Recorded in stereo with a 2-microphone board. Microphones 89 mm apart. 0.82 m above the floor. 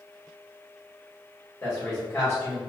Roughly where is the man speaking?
Left.